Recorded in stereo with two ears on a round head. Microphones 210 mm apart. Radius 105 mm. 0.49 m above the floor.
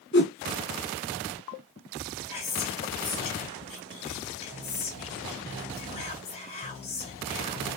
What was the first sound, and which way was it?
A whoosh, 50° left (ahead or behind).